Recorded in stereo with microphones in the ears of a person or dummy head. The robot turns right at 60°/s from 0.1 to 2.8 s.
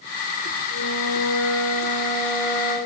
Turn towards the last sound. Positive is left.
turn(degrees=-155)